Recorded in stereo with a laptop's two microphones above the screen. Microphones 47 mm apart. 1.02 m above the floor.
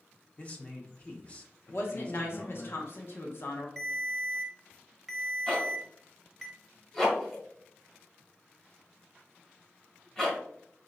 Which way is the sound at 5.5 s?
15° left (ahead or behind).